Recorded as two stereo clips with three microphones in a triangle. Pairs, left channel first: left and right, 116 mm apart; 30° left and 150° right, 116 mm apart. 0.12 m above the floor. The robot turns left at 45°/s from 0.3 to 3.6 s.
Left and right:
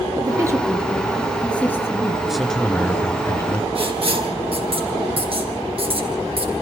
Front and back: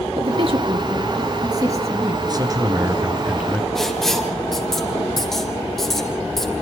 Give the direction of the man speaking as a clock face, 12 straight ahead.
6 o'clock.